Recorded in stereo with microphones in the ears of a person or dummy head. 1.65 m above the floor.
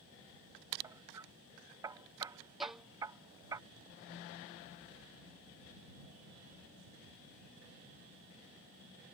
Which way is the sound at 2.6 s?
5° right (ahead or behind).